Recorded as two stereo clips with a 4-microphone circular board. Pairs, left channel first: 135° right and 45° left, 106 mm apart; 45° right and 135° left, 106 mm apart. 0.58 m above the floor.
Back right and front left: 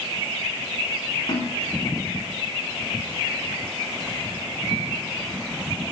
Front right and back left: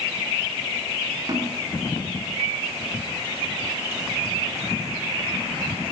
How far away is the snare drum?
About 8.5 m.